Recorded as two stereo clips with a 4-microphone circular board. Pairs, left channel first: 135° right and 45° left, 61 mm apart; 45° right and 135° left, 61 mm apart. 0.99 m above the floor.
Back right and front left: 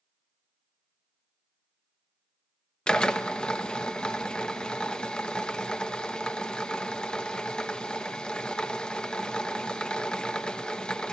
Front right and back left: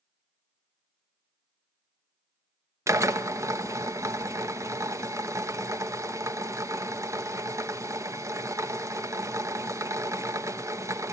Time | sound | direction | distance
2.9 | a drill | 150° left | 1.1 m